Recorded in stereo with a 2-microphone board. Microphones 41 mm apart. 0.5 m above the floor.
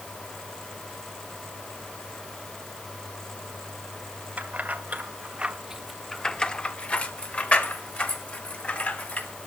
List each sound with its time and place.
4.4 s keys jangling: 40° right (ahead or behind), 1.5 m; by 9.3 s 40° left (ahead or behind), 3 m